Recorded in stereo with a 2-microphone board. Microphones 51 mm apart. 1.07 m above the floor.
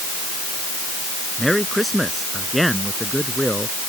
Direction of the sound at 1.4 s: Centre (ahead or behind).